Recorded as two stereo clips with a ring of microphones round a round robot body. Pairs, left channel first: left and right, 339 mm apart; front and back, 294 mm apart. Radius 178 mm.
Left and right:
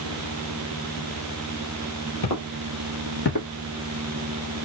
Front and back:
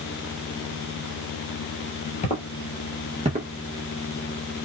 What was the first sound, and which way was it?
Footsteps, 60° left.